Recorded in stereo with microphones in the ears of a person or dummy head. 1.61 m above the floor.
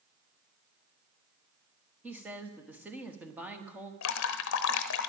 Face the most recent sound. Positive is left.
turn(degrees=75)  # may be behind; listen again after turning